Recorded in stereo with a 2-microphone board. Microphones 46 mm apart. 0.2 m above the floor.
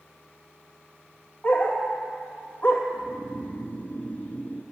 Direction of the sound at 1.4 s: 25° left (ahead or behind).